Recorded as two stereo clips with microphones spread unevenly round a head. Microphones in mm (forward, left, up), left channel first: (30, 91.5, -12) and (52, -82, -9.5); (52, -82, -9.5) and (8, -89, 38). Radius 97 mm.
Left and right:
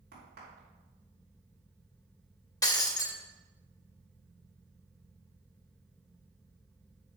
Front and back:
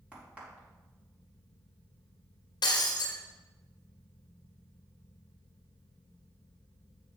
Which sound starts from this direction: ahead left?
Breaking glass, at 2.6 s.